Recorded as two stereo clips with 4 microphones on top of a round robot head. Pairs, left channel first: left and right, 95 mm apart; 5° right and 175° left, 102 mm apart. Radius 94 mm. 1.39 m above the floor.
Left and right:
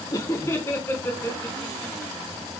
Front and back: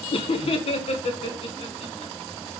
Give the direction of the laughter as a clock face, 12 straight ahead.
11 o'clock.